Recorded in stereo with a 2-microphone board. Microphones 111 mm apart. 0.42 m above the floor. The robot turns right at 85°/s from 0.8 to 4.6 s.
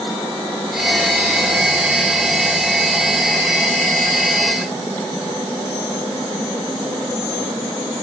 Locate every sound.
Only background noise.